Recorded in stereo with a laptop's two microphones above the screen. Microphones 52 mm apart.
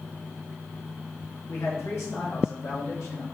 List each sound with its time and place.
1.5 s a man speaking: 60° left (ahead or behind), 1.8 m; by 3.2 s 70° left (ahead or behind), 2.5 m